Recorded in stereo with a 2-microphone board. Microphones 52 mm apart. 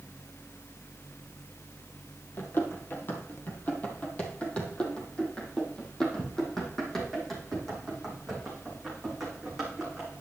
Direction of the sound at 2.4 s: 45° left (ahead or behind).